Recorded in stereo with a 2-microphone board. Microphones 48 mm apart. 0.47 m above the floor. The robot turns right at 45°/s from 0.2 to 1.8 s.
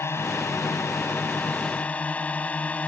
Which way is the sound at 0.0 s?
75° left.